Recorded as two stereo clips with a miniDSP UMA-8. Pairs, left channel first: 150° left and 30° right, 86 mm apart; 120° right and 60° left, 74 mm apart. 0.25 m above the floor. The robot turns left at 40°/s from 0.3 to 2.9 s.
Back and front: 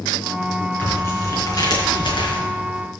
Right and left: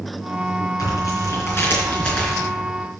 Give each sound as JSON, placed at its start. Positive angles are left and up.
{"t": 0.8, "sound": "tearing paper", "azimuth_deg": -140, "distance_m": 4.0}